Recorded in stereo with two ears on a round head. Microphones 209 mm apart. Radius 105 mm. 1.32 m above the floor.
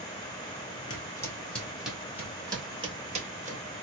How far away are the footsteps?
About 1.4 m.